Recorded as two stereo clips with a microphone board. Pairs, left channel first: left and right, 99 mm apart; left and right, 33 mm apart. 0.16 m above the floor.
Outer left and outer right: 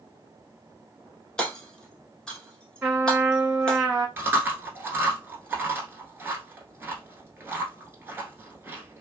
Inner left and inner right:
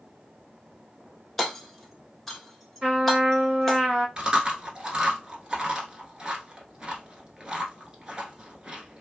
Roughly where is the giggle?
I don't hear a giggle.